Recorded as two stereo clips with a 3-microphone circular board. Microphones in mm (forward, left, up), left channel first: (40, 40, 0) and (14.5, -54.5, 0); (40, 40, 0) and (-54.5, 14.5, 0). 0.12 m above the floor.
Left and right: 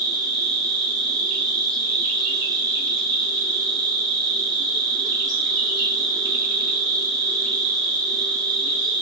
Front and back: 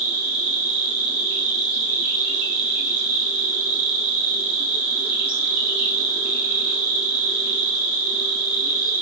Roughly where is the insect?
Right.